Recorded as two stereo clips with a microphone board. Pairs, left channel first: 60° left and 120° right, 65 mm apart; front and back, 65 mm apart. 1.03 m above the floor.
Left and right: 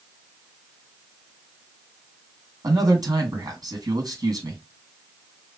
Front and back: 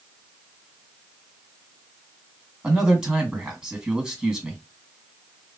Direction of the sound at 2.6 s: 105° right.